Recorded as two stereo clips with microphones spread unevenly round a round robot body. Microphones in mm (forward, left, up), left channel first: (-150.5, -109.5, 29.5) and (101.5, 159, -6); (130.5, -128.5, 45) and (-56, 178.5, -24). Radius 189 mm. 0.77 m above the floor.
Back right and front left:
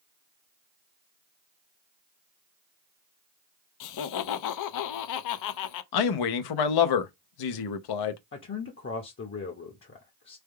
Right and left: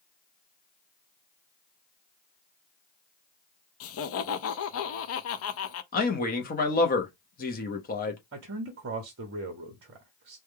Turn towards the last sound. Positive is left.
turn(degrees=170)